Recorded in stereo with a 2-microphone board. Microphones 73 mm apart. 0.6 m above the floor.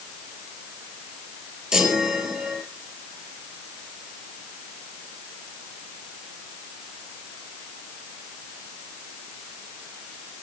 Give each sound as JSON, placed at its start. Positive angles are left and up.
{"t": 1.7, "sound": "a chime", "side_deg": -10, "distance_m": 4.0}